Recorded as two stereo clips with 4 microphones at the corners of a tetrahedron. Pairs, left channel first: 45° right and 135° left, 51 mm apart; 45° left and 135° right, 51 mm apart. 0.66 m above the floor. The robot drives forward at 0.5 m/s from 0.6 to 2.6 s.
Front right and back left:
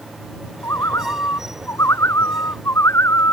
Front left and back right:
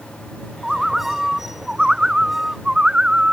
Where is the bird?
50° right; by 3.3 s 60° right.